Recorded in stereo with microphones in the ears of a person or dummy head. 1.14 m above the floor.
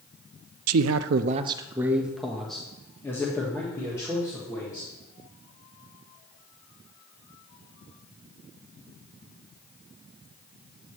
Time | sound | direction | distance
0.7 | a man speaking | 80° right | 0.5 m